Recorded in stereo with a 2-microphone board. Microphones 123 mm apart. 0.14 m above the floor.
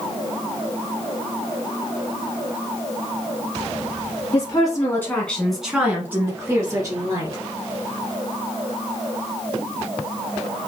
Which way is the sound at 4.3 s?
35° left (ahead or behind).